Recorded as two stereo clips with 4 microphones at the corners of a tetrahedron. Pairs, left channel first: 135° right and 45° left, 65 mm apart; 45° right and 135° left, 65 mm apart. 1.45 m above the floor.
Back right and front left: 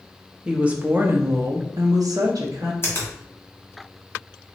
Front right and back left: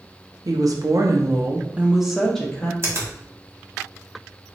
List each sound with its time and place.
0.5 s a woman speaking: 120° left, 0.8 m; by 2.7 s 30° left, 0.9 m
2.8 s a finger snap: 175° left, 1.6 m